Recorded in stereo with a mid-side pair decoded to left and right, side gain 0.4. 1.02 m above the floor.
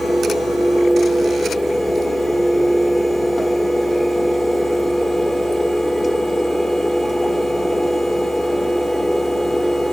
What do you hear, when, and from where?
0.0 s a fan: 15° left, 1.5 m